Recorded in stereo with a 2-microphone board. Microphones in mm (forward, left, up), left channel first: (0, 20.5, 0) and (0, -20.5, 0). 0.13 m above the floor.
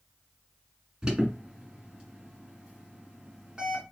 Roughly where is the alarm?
Centre.